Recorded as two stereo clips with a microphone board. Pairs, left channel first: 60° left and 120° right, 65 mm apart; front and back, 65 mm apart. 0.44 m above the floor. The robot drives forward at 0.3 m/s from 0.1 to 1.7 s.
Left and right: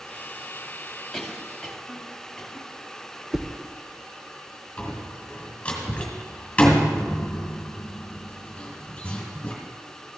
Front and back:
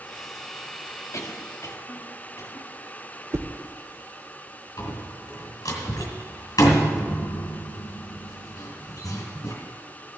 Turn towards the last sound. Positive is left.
turn(degrees=-10)